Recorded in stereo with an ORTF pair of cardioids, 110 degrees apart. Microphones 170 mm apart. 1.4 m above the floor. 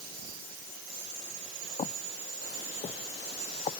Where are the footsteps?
40° left.